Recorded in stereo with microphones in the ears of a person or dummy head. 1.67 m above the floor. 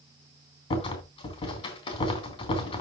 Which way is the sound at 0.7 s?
30° left (ahead or behind).